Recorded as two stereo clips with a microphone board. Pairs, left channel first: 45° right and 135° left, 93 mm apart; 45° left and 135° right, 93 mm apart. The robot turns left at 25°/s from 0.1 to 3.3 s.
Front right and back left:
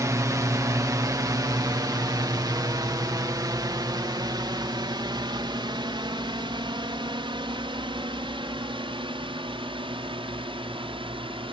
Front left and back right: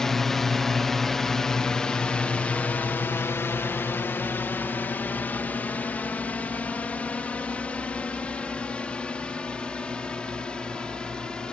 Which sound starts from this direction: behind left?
A drone, at 0.0 s.